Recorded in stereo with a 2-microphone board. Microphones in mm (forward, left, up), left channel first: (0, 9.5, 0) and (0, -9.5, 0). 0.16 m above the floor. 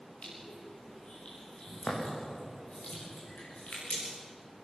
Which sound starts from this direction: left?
Crushing, at 0.2 s.